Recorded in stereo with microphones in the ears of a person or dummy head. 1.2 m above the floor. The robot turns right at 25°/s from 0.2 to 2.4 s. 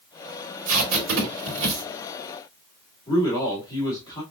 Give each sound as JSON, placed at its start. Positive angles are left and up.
{"t": 0.7, "sound": "tape being pulled", "side_deg": -85, "distance_m": 2.5}
{"t": 3.1, "sound": "a man speaking", "side_deg": 20, "distance_m": 2.5}